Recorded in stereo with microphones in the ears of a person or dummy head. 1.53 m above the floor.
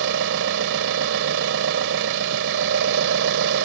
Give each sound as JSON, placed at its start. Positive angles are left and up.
{"t": 0.0, "sound": "an engine running", "side_deg": -70}